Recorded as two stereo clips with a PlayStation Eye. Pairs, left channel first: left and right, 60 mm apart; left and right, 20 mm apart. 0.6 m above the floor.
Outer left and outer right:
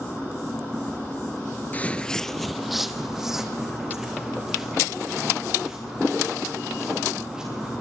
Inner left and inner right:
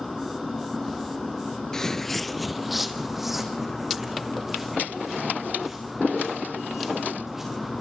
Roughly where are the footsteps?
Left.